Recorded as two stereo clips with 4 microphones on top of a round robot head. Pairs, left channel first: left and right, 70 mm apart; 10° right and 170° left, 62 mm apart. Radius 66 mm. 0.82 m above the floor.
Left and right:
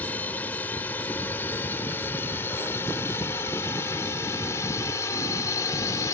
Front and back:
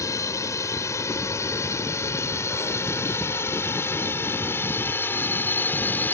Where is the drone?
20° left; by 6.1 s 45° left.